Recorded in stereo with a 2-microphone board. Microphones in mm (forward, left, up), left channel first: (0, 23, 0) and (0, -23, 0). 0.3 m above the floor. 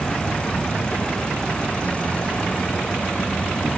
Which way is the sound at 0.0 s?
30° left (ahead or behind).